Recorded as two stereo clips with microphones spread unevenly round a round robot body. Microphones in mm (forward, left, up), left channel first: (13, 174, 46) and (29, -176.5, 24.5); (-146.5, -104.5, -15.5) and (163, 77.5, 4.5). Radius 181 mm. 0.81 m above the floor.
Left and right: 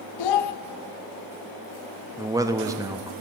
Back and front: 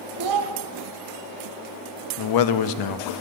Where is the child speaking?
70° left, 0.8 m.